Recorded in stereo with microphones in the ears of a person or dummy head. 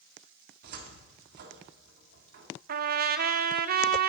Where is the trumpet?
45° right (ahead or behind), 0.7 m.